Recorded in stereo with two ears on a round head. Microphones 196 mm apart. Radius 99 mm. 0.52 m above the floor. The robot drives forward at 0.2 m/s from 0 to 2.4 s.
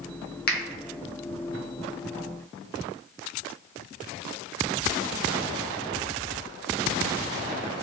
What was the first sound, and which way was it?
A finger snap, 50° left (ahead or behind).